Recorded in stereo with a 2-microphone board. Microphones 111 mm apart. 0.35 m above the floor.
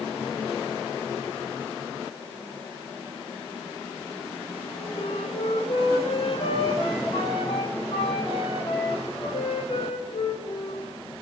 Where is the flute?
55° left (ahead or behind), 1.5 m.